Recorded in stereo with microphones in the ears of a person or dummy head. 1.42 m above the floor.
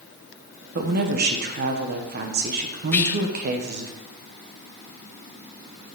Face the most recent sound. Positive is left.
turn(degrees=15)  # may be behind; listen again after turning